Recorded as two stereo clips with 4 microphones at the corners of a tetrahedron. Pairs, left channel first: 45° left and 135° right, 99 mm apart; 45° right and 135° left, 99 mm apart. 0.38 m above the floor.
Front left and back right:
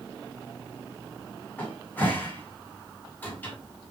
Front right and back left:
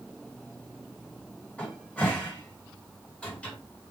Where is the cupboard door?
10° left, 1.3 m.